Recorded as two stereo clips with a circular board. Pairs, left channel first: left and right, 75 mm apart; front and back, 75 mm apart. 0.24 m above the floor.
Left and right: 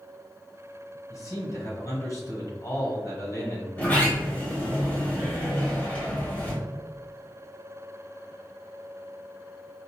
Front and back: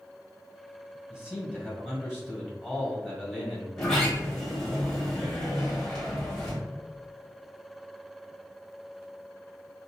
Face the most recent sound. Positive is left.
turn(degrees=75)